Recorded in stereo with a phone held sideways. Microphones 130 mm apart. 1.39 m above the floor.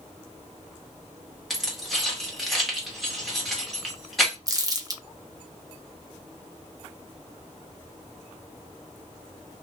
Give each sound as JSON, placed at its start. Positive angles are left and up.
{"t": 1.5, "sound": "keys jangling", "side_deg": 0, "distance_m": 1.2}
{"t": 4.5, "sound": "crumpling", "side_deg": -25, "distance_m": 0.7}